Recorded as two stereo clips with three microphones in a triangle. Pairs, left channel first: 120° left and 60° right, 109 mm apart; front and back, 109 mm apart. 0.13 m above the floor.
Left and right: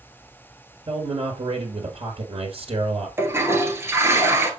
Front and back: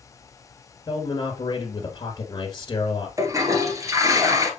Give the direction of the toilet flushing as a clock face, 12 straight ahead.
4 o'clock.